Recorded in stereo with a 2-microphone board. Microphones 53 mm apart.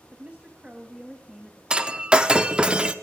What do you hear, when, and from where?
0.1 s a woman speaking: 30° right (ahead or behind), 1.1 m; by 1.6 s centre (ahead or behind), 1.6 m
1.7 s breaking glass: 15° right (ahead or behind), 0.6 m